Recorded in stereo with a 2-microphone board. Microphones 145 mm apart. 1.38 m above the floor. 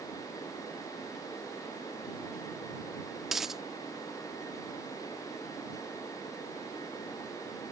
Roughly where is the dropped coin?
Centre.